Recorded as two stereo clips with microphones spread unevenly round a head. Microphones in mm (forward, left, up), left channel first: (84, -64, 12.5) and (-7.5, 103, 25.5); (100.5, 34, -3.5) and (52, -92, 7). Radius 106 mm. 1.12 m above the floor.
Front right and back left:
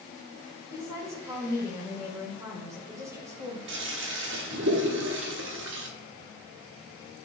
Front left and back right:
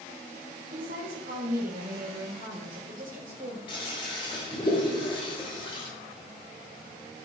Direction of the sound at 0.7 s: 165° right.